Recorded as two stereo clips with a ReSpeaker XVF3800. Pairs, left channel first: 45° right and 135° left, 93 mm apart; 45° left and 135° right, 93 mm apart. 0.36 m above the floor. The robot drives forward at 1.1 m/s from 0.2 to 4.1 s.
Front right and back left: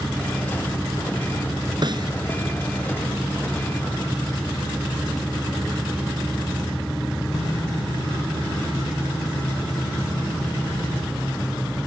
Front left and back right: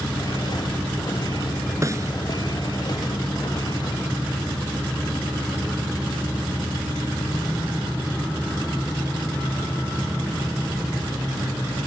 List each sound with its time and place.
1.8 s a snare drum: 170° left